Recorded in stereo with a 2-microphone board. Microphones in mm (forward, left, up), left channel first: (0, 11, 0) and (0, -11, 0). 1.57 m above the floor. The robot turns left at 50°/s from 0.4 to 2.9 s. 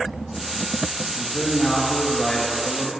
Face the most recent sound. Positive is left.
turn(degrees=95)